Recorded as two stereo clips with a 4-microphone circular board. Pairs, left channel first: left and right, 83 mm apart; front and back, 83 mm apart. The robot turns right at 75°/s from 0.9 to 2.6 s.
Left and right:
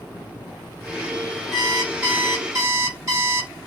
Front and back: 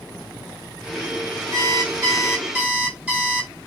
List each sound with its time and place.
1.5 s an alarm clock: 160° left, 0.9 m; by 3.5 s 115° right, 0.9 m